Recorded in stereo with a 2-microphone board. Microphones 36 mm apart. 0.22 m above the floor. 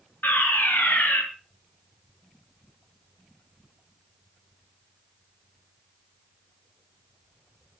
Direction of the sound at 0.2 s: 65° left (ahead or behind).